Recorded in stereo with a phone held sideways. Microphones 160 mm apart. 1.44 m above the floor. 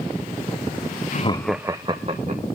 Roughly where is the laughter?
Left.